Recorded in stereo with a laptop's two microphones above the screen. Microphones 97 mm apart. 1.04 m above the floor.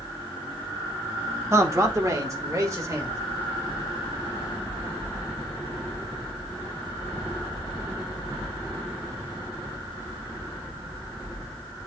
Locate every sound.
1.5 s a man speaking: 30° right (ahead or behind), 1.0 m